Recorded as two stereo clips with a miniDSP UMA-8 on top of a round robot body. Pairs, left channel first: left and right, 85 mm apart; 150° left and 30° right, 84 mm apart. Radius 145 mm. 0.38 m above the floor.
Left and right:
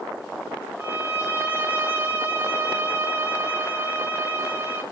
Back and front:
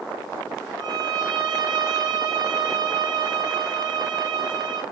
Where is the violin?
30° right, 0.8 m.